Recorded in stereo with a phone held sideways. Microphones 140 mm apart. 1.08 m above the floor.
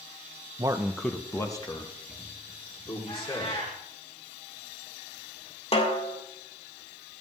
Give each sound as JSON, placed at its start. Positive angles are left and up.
{"t": 0.6, "sound": "a man speaking", "side_deg": -30, "distance_m": 0.6}
{"t": 3.1, "sound": "a cat meowing", "side_deg": 50, "distance_m": 6.5}
{"t": 5.7, "sound": "a snare drum", "side_deg": 45, "distance_m": 1.9}